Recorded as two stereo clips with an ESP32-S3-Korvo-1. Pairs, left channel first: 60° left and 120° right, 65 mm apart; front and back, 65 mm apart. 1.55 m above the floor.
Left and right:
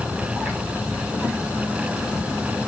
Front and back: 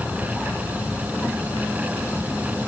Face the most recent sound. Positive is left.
No sound to turn to.